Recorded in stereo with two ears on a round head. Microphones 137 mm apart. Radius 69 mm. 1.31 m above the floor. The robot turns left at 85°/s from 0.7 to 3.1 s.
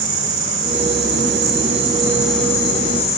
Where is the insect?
45° right, 3 m; by 3.2 s 110° left, 3 m.